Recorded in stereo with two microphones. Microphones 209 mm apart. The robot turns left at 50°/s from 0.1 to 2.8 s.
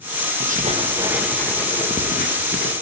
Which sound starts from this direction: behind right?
Writing, at 0.4 s.